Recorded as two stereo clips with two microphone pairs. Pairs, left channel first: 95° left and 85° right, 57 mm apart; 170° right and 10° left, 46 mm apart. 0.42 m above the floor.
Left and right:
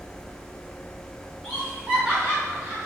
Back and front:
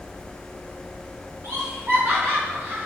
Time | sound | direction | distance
1.4 | laughter | 5° right | 3 m